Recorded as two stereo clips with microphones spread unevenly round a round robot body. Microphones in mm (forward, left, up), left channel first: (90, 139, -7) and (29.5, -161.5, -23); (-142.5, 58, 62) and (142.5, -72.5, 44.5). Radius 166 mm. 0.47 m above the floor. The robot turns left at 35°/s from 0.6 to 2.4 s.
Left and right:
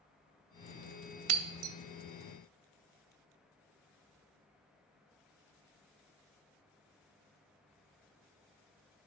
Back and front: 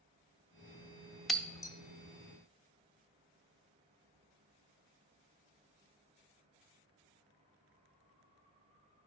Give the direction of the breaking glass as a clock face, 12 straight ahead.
4 o'clock.